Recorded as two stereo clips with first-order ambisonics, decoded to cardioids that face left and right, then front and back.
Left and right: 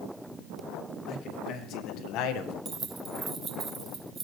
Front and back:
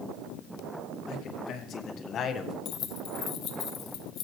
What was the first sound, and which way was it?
A man speaking, 45° left.